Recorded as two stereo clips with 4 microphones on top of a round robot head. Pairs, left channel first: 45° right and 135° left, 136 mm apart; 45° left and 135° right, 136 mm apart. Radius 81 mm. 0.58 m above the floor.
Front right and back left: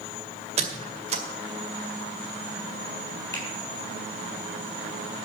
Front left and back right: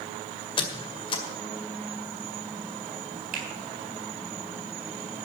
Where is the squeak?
95° left, 2.0 m.